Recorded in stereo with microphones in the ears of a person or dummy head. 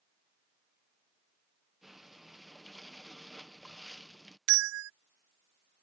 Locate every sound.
1.8 s breathing: centre (ahead or behind)
4.5 s a bell: 70° right (ahead or behind)